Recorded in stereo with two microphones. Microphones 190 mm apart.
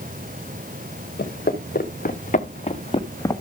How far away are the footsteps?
About 3 m.